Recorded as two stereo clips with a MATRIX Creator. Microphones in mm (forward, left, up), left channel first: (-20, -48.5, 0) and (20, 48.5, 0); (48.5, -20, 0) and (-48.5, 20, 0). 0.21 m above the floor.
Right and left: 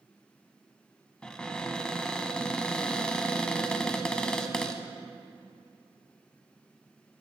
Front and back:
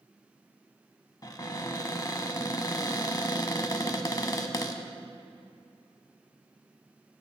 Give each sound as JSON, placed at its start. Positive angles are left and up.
{"t": 1.2, "sound": "a cupboard door", "azimuth_deg": -35, "distance_m": 0.7}